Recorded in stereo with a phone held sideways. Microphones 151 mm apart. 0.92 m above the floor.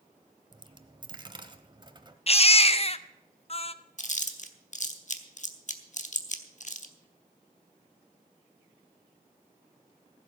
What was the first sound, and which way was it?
A dropped coin, 30° right (ahead or behind).